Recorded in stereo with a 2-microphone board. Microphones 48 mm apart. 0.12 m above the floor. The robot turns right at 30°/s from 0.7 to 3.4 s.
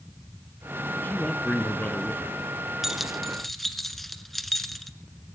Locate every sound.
1.0 s a man speaking: 70° left, 1.2 m; by 2.4 s 115° left, 1.2 m
2.8 s keys jangling: 5° right (ahead or behind), 1.0 m; by 4.9 s 5° left (ahead or behind), 1.0 m